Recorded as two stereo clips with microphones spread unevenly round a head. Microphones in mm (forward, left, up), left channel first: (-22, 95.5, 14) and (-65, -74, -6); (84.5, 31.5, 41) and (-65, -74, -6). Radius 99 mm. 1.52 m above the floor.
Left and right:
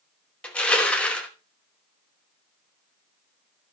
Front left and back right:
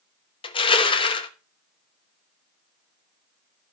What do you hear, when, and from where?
0.4 s crushing: straight ahead, 1.0 m